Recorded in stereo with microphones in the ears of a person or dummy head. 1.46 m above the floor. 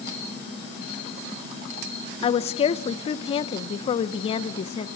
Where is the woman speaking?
35° left (ahead or behind), 0.9 m.